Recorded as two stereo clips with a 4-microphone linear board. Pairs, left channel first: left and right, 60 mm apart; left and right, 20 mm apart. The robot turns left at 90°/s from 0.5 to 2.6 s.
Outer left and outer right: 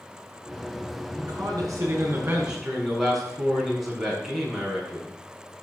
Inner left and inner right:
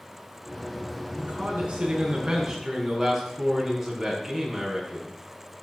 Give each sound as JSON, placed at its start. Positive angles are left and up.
{"t": 1.2, "sound": "a man speaking", "azimuth_deg": -45, "distance_m": 7.5}